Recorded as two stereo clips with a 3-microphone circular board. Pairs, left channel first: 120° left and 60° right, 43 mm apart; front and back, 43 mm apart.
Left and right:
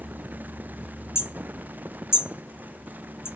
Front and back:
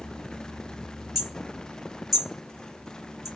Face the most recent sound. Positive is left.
turn(degrees=95)